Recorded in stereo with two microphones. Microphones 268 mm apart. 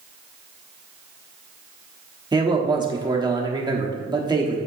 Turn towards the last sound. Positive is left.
turn(degrees=-15)  # may be behind; listen again after turning